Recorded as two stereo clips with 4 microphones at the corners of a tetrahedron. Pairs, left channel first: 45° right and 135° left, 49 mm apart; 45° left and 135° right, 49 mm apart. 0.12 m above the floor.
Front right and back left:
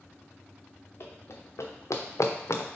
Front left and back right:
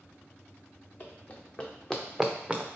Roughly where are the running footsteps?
Ahead.